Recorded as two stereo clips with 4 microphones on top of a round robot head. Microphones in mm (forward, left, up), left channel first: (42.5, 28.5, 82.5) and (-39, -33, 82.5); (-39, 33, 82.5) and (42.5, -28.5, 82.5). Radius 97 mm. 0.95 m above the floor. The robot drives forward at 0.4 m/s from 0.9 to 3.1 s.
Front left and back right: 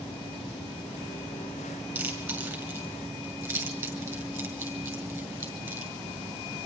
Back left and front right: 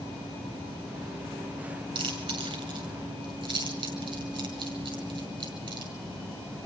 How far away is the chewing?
About 7.5 m.